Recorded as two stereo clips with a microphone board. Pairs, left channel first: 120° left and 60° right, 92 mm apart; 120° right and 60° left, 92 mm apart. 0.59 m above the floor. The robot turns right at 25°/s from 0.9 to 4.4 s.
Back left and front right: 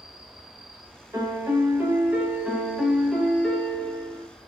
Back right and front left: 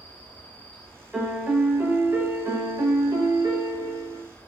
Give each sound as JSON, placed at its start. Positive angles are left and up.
{"t": 0.0, "sound": "an insect", "azimuth_deg": 20, "distance_m": 1.0}
{"t": 1.1, "sound": "a piano", "azimuth_deg": -20, "distance_m": 0.5}